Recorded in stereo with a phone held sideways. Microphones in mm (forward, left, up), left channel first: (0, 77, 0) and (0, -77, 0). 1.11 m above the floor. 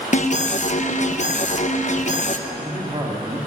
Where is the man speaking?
30° right (ahead or behind), 1.8 m.